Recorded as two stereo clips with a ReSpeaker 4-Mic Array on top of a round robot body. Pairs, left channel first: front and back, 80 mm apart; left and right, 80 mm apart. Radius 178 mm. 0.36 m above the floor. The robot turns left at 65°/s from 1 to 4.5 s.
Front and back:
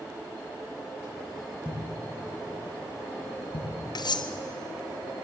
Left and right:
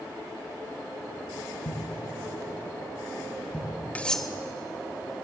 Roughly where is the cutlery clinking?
Ahead.